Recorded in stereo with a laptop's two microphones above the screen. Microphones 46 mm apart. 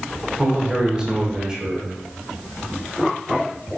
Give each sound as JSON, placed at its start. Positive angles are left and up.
{"t": 0.4, "sound": "a man speaking", "side_deg": -20, "distance_m": 0.8}